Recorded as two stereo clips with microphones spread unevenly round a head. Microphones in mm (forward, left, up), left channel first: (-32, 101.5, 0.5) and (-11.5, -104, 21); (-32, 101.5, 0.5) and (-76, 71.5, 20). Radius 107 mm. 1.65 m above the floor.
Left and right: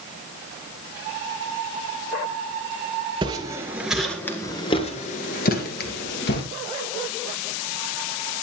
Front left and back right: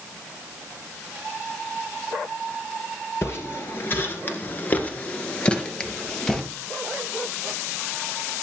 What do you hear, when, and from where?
3.2 s footsteps: 35° right, 2.0 m; by 6.4 s 125° left, 2.5 m